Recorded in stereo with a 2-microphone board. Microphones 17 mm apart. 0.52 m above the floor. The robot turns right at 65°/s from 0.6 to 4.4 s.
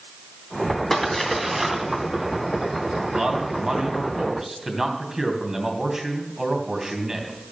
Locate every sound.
0.9 s a splash: 25° left (ahead or behind), 2.5 m; by 4.1 s 5° left (ahead or behind), 2.5 m
3.1 s a man speaking: 110° right, 3 m; by 7.3 s 25° right, 3 m